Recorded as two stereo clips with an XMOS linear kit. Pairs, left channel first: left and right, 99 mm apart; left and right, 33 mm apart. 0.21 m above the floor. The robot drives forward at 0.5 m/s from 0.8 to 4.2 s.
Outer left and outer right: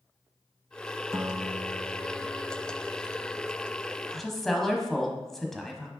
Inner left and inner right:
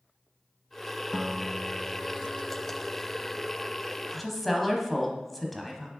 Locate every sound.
1.1 s a guitar: 20° right (ahead or behind), 0.5 m; by 3.9 s 5° right (ahead or behind), 1.7 m
4.1 s a woman speaking: 5° left (ahead or behind), 1.0 m